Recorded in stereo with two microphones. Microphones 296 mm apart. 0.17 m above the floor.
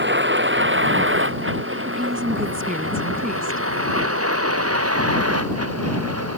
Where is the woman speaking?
30° right (ahead or behind).